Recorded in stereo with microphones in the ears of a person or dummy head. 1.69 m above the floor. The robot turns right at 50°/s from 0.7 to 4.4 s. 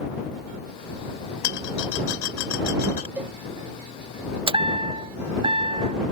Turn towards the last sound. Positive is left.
turn(degrees=-25)  # may be behind; listen again after turning